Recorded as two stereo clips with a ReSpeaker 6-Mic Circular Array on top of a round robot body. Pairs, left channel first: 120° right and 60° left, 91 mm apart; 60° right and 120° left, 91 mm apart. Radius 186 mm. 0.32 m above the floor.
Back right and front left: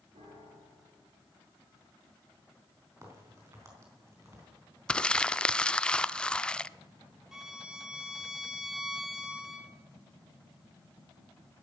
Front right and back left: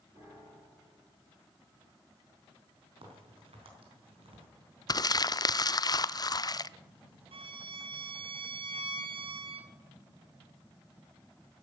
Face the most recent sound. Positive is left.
turn(degrees=145)